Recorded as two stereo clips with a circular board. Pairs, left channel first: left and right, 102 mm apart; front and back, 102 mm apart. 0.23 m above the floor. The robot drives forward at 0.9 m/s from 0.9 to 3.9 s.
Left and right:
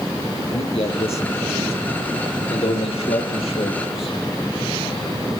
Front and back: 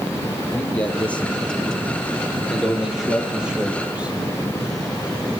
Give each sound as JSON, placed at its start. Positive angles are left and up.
{"t": 0.5, "sound": "a man speaking", "azimuth_deg": 75, "distance_m": 6.0}